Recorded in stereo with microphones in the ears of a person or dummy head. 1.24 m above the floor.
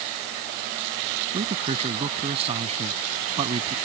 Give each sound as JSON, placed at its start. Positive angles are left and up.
{"t": 1.3, "sound": "a man speaking", "side_deg": -30}